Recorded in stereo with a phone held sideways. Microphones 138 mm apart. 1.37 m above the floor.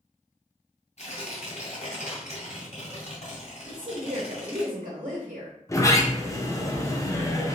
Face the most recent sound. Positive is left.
turn(degrees=25)  # may be behind; listen again after turning